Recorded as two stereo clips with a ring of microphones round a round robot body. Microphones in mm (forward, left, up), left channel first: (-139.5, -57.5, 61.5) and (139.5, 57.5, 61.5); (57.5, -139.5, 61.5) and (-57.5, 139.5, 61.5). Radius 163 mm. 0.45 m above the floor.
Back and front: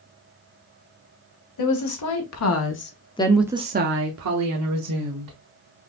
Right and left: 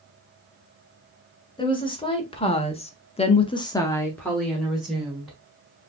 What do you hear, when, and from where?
1.6 s a woman speaking: 140° right, 2 m; by 5.4 s 25° left, 2 m